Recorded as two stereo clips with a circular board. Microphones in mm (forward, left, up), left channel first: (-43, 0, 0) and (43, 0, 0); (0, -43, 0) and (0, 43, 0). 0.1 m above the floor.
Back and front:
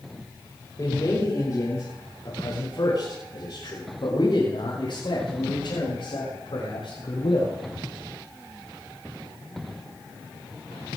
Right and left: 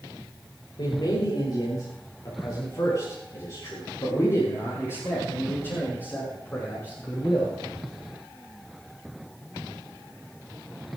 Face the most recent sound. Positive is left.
turn(degrees=-160)